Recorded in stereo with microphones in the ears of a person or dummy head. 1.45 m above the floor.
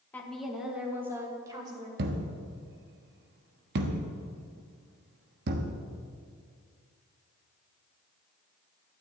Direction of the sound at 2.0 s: 55° right (ahead or behind).